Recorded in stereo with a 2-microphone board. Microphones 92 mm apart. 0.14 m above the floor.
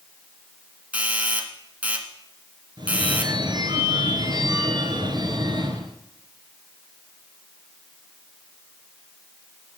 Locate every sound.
0.9 s a doorbell: 15° right (ahead or behind), 1.7 m
2.8 s a phone ringing: 55° right (ahead or behind), 1.7 m